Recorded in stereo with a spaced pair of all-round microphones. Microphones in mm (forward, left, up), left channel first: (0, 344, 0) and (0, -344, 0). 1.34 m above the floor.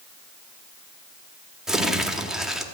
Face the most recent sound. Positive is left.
turn(degrees=0)  # may be behind; listen again after turning